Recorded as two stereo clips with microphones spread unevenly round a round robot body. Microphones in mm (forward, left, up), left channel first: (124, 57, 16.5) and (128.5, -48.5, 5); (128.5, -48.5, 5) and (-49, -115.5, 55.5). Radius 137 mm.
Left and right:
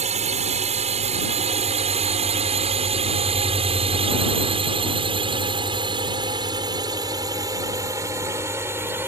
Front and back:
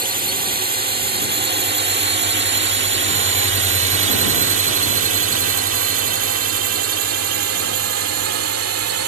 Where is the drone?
110° right; by 9.1 s 165° right.